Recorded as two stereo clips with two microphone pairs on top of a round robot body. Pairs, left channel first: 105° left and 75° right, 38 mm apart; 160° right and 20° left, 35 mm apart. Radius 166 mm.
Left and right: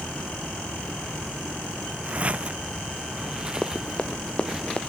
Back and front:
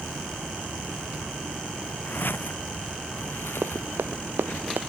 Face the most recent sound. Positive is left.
turn(degrees=40)